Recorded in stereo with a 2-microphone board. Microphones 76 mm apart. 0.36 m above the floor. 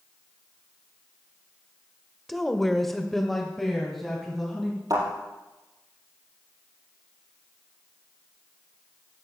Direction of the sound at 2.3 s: Centre (ahead or behind).